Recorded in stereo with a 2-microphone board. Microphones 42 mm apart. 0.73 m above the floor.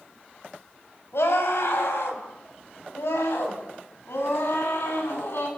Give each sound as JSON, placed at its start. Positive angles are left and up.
{"t": 1.1, "sound": "a scream", "side_deg": 80, "distance_m": 5.5}